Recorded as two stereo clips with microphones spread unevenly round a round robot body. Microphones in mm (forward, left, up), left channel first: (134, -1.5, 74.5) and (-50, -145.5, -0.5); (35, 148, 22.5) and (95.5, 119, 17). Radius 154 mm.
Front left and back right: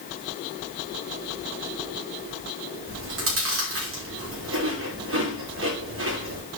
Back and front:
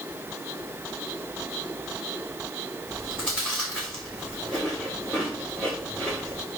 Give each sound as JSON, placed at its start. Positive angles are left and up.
{"t": 2.9, "sound": "chewing", "azimuth_deg": -125, "distance_m": 3.5}